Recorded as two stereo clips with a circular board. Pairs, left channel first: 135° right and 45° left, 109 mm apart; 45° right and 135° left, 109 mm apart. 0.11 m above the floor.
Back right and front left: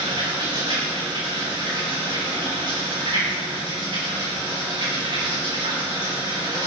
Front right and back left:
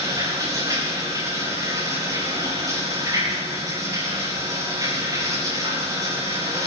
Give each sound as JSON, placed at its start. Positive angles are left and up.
{"t": 0.0, "sound": "running water", "azimuth_deg": 80, "distance_m": 7.5}